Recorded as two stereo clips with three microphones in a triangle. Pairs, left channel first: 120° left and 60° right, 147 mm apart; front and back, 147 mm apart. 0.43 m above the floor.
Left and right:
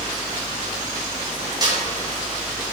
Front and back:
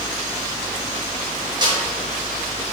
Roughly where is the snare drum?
Behind right.